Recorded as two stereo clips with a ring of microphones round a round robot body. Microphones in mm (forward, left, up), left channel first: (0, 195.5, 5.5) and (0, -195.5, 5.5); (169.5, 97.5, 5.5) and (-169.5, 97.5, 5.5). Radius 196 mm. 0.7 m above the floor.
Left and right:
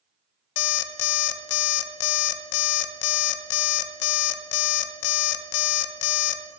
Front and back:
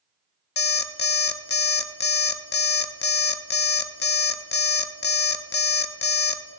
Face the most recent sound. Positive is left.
turn(degrees=65)